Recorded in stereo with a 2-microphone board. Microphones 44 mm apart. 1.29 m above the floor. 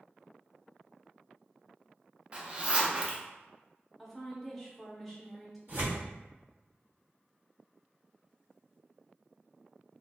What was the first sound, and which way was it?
A zipper, 30° right (ahead or behind).